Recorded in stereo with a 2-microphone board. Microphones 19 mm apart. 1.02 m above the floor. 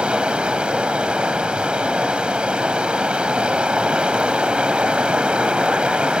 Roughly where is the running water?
Right.